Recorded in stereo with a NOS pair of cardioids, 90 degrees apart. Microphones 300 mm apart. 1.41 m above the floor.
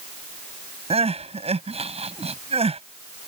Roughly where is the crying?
Ahead.